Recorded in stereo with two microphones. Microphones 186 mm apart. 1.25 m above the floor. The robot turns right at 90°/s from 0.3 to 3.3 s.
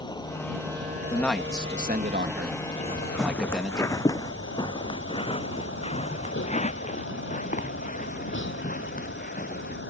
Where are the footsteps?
35° right (ahead or behind); by 9.8 s 50° left (ahead or behind).